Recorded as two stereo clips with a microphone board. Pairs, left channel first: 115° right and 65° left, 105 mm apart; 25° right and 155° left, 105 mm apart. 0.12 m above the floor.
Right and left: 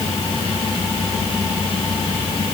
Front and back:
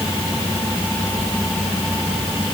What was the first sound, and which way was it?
Only background noise.